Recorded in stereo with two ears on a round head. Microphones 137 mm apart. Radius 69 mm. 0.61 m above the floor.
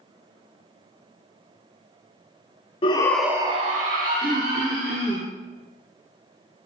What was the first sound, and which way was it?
A shout, 35° left (ahead or behind).